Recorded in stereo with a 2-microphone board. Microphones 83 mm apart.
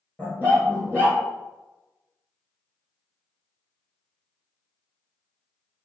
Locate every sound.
0.2 s a dog barking: 20° left (ahead or behind), 2.0 m